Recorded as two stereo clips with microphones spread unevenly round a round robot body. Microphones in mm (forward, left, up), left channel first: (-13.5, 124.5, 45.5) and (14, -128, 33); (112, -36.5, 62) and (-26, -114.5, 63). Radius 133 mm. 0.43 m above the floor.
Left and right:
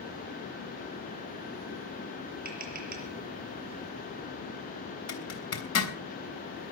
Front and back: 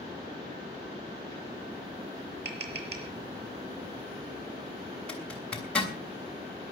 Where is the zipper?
115° left, 3 m.